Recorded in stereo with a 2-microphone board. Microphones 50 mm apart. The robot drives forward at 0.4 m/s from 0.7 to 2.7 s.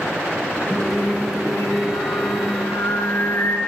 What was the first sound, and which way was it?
Singing, 50° left (ahead or behind).